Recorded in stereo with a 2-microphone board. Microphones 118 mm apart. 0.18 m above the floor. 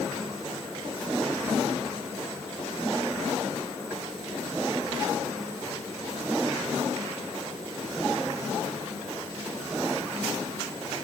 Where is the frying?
No frying in this recording.